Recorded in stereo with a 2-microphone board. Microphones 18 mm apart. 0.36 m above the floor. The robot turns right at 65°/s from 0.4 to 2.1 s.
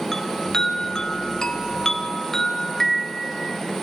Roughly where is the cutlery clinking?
I don't hear cutlery clinking.